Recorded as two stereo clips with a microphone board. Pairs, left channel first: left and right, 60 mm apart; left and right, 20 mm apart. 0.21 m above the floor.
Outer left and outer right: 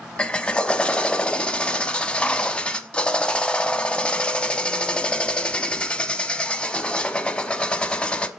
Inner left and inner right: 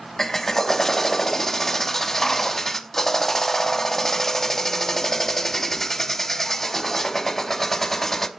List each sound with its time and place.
0.2 s a drill: 20° left (ahead or behind), 0.6 m